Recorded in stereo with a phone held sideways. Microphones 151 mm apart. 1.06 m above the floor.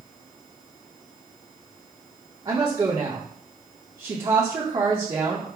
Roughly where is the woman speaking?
Right.